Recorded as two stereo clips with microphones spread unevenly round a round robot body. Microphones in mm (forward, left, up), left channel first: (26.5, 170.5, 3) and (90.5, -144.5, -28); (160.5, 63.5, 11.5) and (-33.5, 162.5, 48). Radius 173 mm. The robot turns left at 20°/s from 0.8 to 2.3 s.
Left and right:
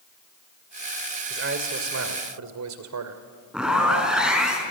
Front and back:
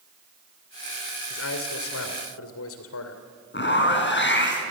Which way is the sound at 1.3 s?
25° right.